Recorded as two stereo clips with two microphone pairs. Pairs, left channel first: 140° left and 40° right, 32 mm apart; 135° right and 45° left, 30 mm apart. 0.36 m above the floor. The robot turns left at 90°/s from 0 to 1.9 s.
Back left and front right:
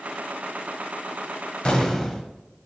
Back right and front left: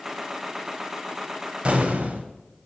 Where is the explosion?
90° left, 1.0 m; by 2.3 s 65° left, 1.0 m.